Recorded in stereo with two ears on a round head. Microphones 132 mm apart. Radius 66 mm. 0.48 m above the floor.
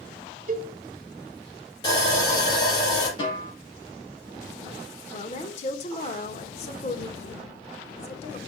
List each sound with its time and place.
0.5 s a cowbell: 55° right (ahead or behind), 1.2 m
1.8 s sawing: 30° left (ahead or behind), 5 m
3.2 s a snare drum: 35° left (ahead or behind), 4 m
5.1 s a woman speaking: 45° left (ahead or behind), 1.3 m